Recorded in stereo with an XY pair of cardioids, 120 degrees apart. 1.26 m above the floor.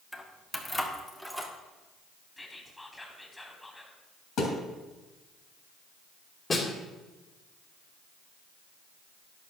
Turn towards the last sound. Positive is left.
turn(degrees=30)